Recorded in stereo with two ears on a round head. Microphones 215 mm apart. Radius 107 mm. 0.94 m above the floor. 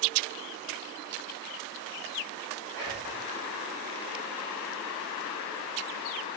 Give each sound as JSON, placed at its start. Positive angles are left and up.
{"t": 2.7, "sound": "whispering", "side_deg": -5, "distance_m": 1.5}